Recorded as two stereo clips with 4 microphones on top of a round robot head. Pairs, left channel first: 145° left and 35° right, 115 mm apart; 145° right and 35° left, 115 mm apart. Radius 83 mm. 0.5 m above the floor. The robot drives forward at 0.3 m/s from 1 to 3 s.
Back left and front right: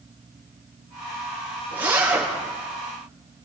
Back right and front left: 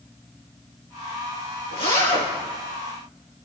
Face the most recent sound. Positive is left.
turn(degrees=-105)